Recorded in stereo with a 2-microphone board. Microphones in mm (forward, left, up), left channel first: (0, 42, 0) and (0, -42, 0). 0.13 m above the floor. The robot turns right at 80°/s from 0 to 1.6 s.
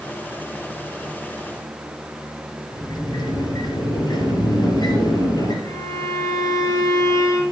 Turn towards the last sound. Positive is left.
turn(degrees=45)  # may be behind; listen again after turning